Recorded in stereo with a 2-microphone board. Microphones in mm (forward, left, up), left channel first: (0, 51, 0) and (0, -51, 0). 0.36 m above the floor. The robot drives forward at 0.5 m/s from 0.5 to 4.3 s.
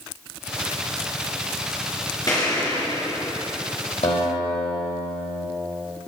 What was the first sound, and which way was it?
An explosion, 40° left (ahead or behind).